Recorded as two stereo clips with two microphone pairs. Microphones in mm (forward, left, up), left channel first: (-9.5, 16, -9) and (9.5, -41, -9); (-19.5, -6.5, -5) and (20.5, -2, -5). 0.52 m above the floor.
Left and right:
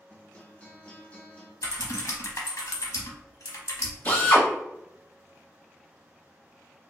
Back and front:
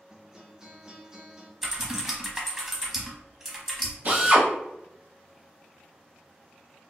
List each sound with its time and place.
0.1 s a guitar: 65° left, 0.8 m
1.6 s typing on a keyboard: 85° left, 0.8 m
4.0 s a drill: 45° left, 1.2 m